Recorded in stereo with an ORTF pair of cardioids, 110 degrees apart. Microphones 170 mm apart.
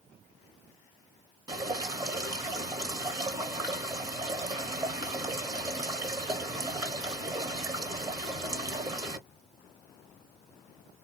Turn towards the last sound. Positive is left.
turn(degrees=-20)